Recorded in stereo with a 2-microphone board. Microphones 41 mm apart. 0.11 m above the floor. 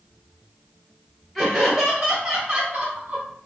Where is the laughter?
5° left (ahead or behind), 2 m; by 3.2 s 35° right (ahead or behind), 3 m.